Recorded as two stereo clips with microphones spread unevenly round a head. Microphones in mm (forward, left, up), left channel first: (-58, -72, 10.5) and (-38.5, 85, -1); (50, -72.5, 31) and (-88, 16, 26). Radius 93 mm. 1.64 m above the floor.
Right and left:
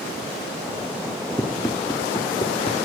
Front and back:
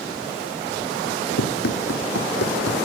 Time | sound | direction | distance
1.4 | running footsteps | 20° right | ?